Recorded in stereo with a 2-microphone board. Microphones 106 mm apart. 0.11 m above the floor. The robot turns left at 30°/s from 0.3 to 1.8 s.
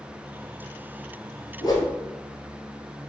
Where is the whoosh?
40° left (ahead or behind), 1.1 m; by 1.9 s 35° left (ahead or behind), 1.1 m.